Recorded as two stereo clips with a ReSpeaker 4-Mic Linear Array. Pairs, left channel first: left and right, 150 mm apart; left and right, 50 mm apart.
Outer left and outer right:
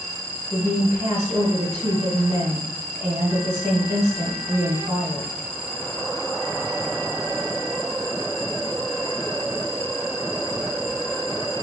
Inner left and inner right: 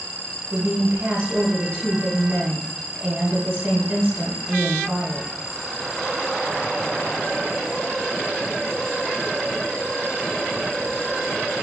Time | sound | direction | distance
0.5 | a woman speaking | 20° right (ahead or behind) | 1.1 m